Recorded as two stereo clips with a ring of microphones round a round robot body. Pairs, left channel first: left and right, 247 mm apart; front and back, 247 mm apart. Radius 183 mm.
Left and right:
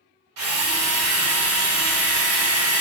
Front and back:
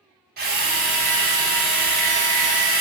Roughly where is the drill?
Behind right.